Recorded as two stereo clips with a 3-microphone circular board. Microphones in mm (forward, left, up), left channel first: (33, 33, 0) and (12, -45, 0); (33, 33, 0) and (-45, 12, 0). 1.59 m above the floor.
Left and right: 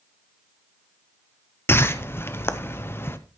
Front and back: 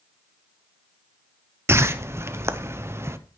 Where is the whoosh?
135° left, 0.8 m.